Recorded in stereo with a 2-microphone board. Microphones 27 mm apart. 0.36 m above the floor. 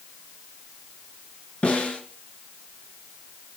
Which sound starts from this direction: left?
A snare drum, at 1.6 s.